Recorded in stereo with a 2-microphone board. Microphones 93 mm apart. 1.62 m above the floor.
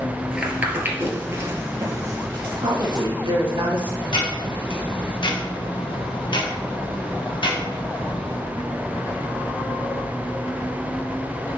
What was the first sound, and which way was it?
Footsteps, 10° right (ahead or behind).